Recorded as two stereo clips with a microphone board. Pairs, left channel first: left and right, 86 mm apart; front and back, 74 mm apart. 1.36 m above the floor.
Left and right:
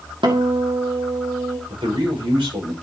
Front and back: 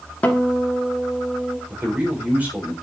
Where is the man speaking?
110° right, 6 m.